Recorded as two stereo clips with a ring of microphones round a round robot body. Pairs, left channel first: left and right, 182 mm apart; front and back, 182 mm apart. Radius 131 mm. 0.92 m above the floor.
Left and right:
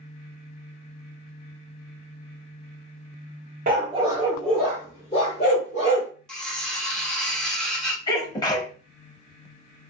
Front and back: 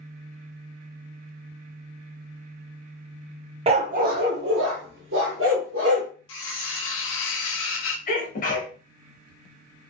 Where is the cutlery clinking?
5° left, 0.7 m.